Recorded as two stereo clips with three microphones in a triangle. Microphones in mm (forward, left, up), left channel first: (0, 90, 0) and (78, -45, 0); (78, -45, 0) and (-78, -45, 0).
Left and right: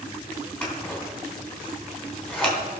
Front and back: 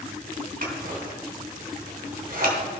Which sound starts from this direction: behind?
Scissors, at 0.6 s.